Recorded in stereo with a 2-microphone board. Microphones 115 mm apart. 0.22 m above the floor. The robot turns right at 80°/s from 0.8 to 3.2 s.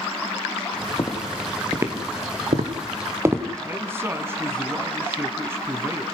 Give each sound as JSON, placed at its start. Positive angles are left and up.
{"t": 1.0, "sound": "footsteps", "side_deg": 55, "distance_m": 3.5}
{"t": 3.6, "sound": "a man speaking", "side_deg": -20, "distance_m": 2.0}